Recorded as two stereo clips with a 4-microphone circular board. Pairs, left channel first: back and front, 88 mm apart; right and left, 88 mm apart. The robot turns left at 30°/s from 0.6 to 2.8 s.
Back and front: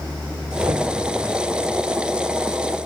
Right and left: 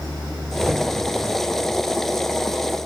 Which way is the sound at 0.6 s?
30° left.